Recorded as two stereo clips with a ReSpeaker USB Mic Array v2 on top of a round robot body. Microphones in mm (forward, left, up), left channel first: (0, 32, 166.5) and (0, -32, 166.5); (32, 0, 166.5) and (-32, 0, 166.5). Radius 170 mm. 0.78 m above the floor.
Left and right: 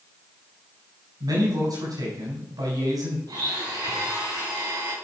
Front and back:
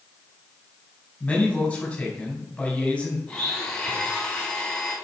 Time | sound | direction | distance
1.2 | a man speaking | 75° right | 5 m
3.3 | a blender | 80° right | 4.5 m